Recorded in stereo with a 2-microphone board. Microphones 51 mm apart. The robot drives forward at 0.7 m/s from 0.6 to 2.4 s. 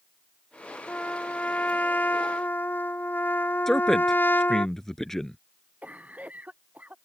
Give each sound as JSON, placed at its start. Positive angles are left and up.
{"t": 0.9, "sound": "a trumpet", "side_deg": 25}
{"t": 3.7, "sound": "a man speaking", "side_deg": 10}
{"t": 5.8, "sound": "a cough", "side_deg": -30}